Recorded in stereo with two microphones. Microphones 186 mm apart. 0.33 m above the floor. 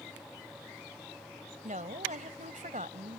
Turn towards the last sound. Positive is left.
turn(degrees=-40)  # may be behind; listen again after turning